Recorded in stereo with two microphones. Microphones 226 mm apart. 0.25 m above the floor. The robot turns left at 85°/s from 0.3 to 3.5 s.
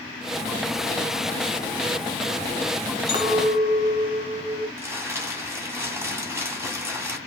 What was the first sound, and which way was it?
A clink, 95° left.